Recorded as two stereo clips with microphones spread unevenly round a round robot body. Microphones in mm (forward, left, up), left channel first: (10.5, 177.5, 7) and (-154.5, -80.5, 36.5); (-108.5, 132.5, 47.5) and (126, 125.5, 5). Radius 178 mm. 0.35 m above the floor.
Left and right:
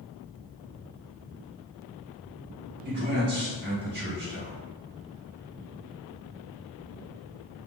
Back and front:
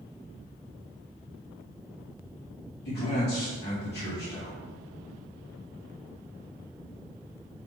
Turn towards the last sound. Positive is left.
turn(degrees=-155)